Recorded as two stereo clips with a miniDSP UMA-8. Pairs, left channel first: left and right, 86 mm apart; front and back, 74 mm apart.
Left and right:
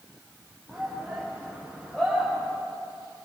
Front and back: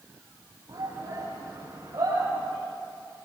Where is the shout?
Straight behind, 6 m; by 2.5 s 175° left, 8 m.